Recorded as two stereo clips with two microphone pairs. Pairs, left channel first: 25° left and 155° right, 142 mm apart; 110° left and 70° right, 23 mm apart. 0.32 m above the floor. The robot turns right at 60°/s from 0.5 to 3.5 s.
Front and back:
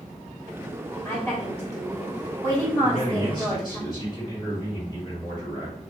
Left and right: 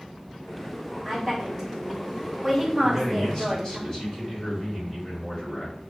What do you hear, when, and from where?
1.1 s a woman speaking: 25° right, 1.4 m; by 3.8 s 120° left, 1.4 m
2.8 s a man speaking: 35° left, 1.9 m; by 5.8 s 75° left, 1.9 m